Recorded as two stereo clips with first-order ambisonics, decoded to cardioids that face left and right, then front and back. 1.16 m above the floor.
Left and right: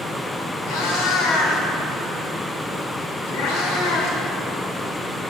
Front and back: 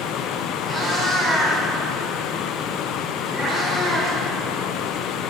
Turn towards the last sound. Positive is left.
turn(degrees=90)